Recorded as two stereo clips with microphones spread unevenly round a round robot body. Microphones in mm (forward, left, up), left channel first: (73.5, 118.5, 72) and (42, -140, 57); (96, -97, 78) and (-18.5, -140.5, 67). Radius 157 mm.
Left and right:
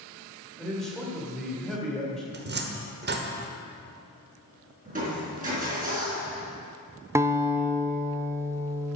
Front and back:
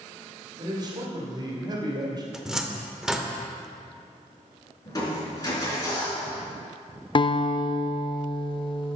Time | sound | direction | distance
0.6 | a man speaking | 175° left | 1.8 m
2.3 | a cupboard door | 80° right | 1.3 m
4.8 | crushing | 40° right | 4 m
7.2 | a guitar | 25° right | 0.7 m